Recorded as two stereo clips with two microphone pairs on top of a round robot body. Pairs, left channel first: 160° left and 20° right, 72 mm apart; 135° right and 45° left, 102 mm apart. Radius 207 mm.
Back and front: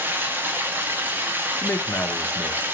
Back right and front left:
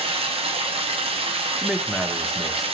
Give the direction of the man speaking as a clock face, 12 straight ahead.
8 o'clock.